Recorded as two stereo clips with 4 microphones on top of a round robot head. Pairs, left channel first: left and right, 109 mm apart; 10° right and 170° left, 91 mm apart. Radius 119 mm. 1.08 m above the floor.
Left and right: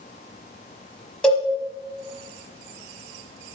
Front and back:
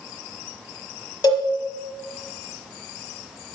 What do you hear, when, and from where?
1.2 s a cowbell: 5° left, 1.1 m